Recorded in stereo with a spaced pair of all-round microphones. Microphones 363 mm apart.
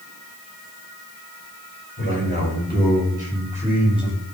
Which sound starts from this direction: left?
A man speaking, at 2.0 s.